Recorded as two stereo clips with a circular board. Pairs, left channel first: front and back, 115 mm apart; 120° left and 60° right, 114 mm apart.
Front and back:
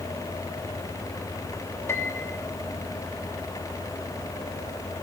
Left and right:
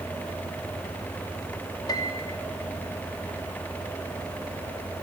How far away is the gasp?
I don't hear a gasp.